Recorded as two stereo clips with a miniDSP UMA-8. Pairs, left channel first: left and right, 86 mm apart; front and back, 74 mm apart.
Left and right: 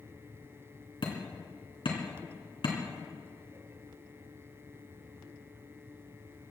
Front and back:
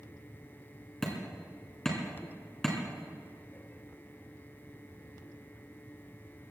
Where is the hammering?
85° left, 3.5 m.